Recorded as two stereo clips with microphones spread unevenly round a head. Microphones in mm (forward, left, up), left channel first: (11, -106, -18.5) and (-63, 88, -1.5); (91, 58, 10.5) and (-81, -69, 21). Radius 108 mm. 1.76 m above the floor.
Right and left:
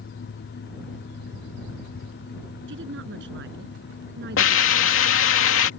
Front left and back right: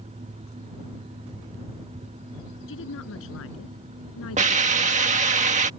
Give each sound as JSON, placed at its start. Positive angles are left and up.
{"t": 2.7, "sound": "a woman speaking", "azimuth_deg": 70}
{"t": 4.4, "sound": "a hiss", "azimuth_deg": -90}